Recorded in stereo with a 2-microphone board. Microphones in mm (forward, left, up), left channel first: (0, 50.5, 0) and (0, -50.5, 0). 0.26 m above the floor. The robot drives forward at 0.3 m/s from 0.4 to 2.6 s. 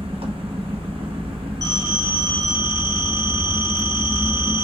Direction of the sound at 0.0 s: 65° right (ahead or behind).